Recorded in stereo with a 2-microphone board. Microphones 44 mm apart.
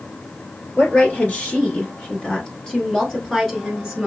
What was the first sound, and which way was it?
A woman speaking, 45° left (ahead or behind).